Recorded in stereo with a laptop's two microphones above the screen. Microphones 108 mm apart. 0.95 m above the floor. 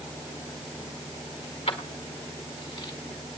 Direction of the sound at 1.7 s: 80° left.